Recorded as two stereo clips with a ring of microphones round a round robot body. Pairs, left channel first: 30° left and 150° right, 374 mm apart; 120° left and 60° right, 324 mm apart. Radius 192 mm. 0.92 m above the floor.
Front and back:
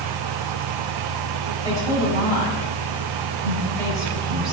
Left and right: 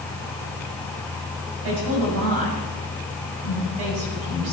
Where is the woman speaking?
50° right, 6.5 m.